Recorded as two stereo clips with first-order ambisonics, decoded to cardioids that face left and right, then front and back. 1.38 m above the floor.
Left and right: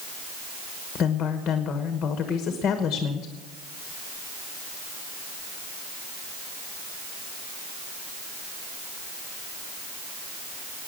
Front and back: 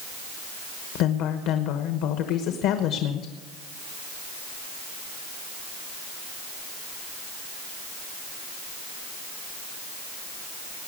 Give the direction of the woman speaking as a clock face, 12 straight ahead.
11 o'clock.